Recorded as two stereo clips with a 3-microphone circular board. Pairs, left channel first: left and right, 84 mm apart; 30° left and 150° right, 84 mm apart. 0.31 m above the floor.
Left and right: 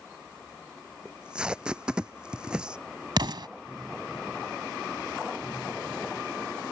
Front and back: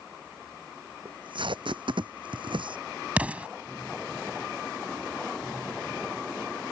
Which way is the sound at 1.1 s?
170° right.